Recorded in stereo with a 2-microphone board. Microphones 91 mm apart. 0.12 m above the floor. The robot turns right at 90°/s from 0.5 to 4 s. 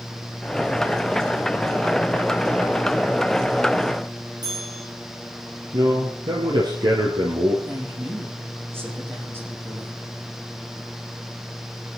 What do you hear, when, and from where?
4.4 s a bell: 50° right (ahead or behind), 6.5 m
5.7 s a man speaking: 60° right (ahead or behind), 3 m
7.7 s a woman speaking: 25° right (ahead or behind), 7.5 m